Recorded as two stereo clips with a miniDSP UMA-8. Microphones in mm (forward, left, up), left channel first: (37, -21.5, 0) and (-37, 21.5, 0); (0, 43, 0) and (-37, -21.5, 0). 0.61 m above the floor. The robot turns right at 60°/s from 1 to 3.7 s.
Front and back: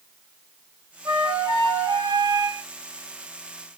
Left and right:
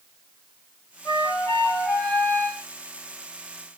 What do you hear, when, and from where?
1.1 s a flute: 100° left, 1.0 m; by 2.6 s 165° right, 1.0 m